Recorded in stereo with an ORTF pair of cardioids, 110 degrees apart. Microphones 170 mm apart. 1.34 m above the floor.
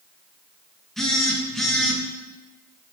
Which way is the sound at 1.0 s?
Straight ahead.